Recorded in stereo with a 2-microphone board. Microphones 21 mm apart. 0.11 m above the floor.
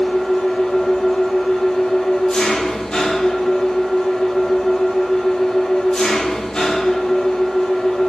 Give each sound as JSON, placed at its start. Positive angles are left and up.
{"t": 0.0, "sound": "an engine running", "side_deg": 45, "distance_m": 1.3}